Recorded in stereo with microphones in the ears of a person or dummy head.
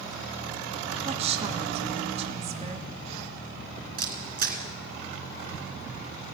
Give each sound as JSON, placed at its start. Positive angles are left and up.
{"t": 1.1, "sound": "a woman speaking", "side_deg": -35, "distance_m": 1.3}
{"t": 4.0, "sound": "a camera shutter", "side_deg": -55, "distance_m": 3.0}